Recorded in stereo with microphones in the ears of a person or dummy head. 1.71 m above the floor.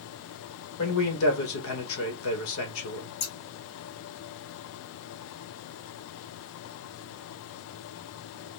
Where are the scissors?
55° left (ahead or behind), 1.4 m.